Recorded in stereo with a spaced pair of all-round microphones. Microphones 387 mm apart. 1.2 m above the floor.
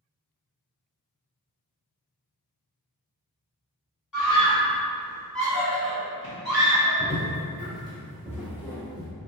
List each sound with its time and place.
4.1 s a scream: 50° left (ahead or behind), 0.8 m; by 7.0 s 60° left (ahead or behind), 1.9 m
7.0 s footsteps: 10° right (ahead or behind), 1.2 m; by 9.1 s 25° left (ahead or behind), 1.9 m